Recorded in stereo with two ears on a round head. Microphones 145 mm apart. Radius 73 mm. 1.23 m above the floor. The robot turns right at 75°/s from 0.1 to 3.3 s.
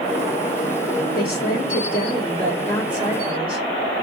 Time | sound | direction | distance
1.1 | a woman speaking | 60° left | 2.5 m